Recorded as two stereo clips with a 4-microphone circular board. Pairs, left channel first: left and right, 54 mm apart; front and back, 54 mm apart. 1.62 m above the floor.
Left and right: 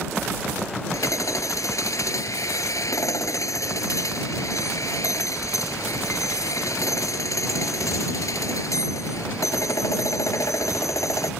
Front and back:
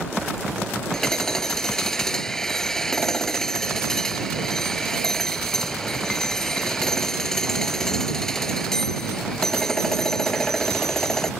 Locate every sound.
0.9 s hammering: 80° left